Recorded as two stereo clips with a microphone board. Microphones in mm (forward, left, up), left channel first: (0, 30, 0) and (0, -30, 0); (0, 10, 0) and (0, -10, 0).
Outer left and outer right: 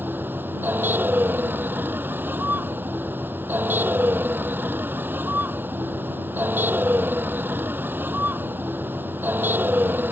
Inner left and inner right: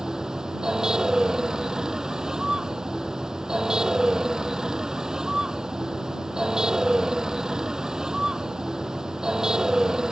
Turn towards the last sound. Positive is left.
turn(degrees=-35)  # may be behind; listen again after turning